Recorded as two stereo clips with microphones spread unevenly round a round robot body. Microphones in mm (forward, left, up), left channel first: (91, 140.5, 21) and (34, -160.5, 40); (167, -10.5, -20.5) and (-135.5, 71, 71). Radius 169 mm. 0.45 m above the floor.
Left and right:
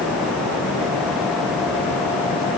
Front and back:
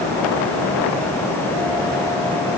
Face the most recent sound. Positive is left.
No sound to turn to.